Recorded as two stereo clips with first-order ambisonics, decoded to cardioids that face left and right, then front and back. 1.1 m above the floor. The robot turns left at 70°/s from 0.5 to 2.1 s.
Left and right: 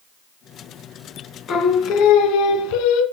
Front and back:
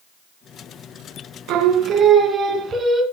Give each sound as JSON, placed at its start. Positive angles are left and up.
{"t": 1.5, "sound": "singing", "azimuth_deg": 150, "distance_m": 2.5}